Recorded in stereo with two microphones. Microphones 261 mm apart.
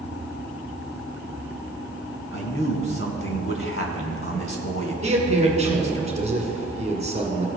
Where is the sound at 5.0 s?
25° right (ahead or behind), 1.7 m.